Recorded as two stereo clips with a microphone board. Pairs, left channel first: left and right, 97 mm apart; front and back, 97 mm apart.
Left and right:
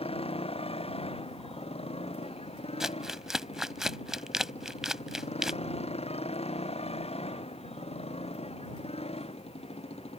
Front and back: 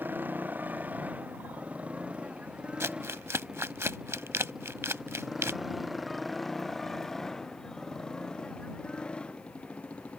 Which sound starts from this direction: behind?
Crumpling, at 2.8 s.